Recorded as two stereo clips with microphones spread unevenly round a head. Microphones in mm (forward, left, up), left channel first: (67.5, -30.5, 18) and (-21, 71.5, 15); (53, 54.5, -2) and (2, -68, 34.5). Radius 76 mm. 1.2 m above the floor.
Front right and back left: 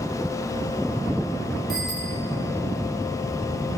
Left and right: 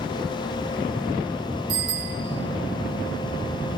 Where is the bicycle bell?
135° right, 2 m.